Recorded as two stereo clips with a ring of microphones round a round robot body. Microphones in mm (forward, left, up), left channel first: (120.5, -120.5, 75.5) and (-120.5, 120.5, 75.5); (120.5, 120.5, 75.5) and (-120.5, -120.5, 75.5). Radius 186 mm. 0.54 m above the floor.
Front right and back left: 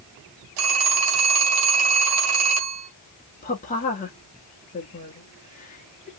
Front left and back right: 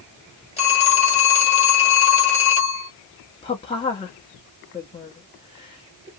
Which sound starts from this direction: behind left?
A phone ringing, at 0.6 s.